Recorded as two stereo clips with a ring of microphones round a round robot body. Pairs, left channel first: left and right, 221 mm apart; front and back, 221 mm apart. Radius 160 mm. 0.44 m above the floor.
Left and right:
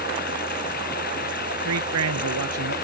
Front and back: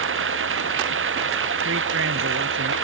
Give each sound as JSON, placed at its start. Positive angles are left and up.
{"t": 0.0, "sound": "running water", "azimuth_deg": 155}
{"t": 1.6, "sound": "a man speaking", "azimuth_deg": -125}